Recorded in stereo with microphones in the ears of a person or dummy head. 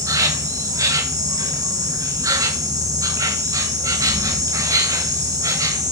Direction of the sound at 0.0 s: 15° right (ahead or behind).